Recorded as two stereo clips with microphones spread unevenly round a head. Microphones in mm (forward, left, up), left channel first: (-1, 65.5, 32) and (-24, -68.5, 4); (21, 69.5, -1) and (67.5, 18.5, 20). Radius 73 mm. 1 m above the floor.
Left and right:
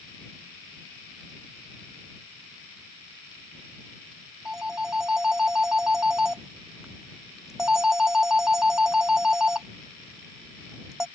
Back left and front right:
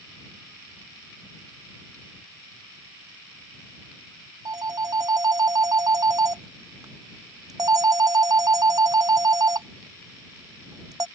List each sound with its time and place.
4.5 s a phone ringing: 15° right